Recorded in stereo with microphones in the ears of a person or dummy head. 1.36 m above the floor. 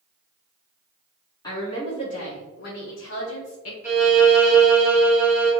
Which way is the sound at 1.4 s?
20° left (ahead or behind).